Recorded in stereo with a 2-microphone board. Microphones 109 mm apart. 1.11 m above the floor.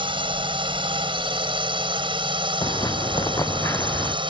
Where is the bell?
I don't hear a bell.